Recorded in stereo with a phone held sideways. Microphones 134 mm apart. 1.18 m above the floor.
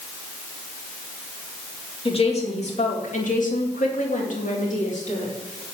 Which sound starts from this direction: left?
A woman speaking, at 2.0 s.